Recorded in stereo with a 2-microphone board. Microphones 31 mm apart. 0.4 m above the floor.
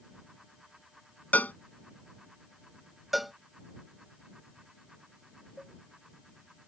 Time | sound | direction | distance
1.3 | a cowbell | 75° left (ahead or behind) | ?
3.1 | a cowbell | centre (ahead or behind) | ?
5.6 | a cowbell | 35° right (ahead or behind) | ?